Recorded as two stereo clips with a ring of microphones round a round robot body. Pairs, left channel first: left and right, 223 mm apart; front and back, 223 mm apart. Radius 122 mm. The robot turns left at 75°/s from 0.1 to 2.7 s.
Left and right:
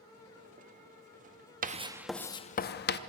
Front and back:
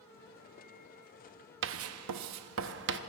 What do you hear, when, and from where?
1.6 s writing: 145° right, 0.7 m; by 3.0 s 135° left, 0.7 m